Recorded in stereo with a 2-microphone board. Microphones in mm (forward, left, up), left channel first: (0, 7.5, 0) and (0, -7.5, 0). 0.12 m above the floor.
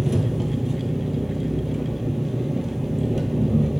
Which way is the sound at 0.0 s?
25° right (ahead or behind).